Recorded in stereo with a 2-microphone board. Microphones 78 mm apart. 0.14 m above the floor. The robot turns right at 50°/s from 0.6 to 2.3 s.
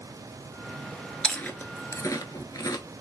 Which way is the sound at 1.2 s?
10° left (ahead or behind).